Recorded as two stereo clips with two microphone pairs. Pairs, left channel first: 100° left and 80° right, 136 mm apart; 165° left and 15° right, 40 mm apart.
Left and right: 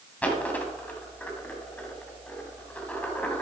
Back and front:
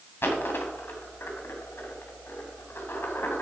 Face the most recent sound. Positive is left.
turn(degrees=180)